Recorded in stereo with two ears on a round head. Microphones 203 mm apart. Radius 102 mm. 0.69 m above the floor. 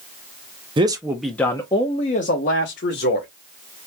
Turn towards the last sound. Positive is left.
turn(degrees=50)  # may be behind; listen again after turning